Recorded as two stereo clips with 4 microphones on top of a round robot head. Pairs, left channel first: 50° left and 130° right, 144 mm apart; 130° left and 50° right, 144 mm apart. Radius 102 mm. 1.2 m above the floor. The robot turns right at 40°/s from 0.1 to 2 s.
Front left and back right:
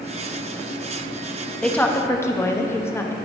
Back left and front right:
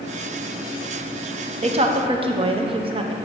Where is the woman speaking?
30° right, 0.8 m; by 3.1 s 15° right, 0.8 m.